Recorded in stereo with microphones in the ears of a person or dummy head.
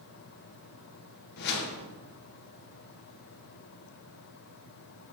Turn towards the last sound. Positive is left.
turn(degrees=55)  # may be behind; listen again after turning